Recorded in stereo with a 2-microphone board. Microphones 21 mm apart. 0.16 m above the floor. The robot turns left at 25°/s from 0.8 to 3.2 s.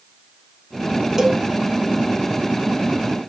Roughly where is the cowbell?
Centre.